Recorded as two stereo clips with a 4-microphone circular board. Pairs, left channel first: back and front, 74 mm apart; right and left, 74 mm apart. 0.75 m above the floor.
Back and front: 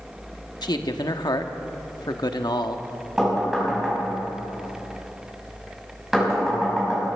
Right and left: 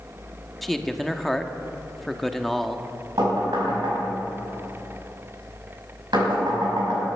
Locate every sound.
0.6 s a man speaking: 175° right, 1.0 m
3.2 s knocking: 85° left, 5.5 m